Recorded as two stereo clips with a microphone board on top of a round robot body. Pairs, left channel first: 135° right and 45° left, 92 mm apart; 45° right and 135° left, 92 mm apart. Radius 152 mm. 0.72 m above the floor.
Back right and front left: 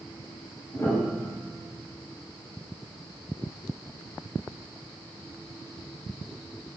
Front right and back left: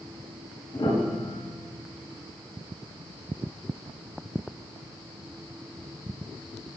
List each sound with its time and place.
0.7 s a piano: 80° right, 5 m